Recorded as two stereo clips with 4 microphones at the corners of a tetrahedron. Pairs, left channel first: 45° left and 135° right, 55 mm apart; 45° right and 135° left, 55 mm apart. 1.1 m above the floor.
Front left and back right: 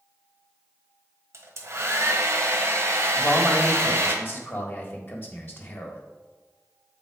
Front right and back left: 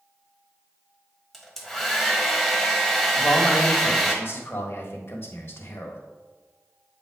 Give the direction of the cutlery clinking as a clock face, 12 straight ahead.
I don't hear cutlery clinking.